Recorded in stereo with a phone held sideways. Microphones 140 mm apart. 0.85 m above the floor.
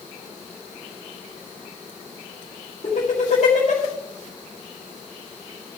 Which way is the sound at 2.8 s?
55° left (ahead or behind).